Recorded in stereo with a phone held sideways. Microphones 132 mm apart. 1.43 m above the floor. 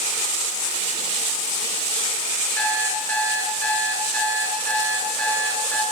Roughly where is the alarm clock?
Centre.